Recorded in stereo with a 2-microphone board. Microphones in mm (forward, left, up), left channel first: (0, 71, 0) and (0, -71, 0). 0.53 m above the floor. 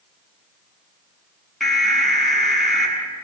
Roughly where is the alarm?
Centre.